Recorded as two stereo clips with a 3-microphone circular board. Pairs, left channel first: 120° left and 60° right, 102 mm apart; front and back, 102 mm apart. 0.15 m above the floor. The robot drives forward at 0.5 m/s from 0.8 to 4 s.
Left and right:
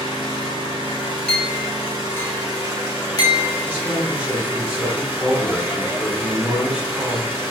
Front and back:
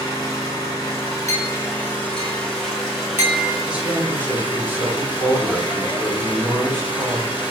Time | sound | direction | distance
0.0 | an engine running | 45° right | 2.0 m
1.3 | a clink | 40° left | 1.1 m
3.7 | a man speaking | 110° right | 1.1 m